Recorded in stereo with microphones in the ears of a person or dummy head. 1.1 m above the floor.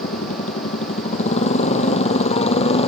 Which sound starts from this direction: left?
A motorcycle, at 0.0 s.